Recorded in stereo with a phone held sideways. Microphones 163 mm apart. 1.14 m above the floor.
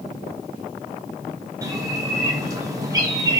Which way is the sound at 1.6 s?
20° right (ahead or behind).